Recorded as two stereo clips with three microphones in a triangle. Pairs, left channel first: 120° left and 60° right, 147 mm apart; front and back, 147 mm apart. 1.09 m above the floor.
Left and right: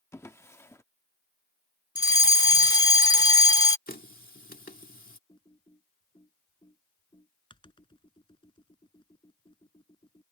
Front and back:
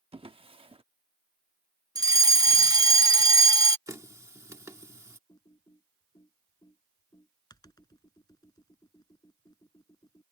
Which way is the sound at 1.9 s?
145° left.